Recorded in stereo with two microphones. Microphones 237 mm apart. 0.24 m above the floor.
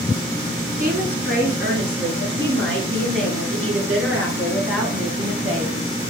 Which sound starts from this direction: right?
A woman speaking, at 0.8 s.